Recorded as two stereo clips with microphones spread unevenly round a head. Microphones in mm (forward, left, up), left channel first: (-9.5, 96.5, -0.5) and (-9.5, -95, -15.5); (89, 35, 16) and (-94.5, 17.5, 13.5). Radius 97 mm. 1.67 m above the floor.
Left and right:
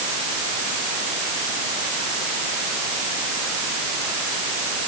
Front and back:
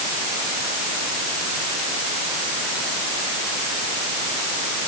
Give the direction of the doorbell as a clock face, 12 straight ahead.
No doorbell in this recording.